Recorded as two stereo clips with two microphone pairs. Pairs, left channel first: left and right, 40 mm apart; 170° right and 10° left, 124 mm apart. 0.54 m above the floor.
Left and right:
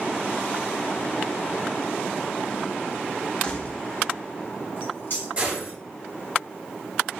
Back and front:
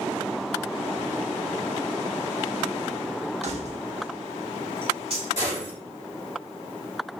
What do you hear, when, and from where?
3.4 s keys jangling: 30° left, 0.6 m; by 5.3 s 55° left, 1.8 m
5.4 s a gunshot: 145° right, 2.0 m